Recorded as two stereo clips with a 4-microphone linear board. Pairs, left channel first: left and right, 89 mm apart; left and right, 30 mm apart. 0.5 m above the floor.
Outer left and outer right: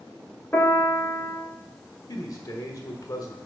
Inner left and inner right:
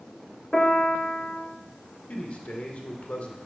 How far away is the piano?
About 1.5 m.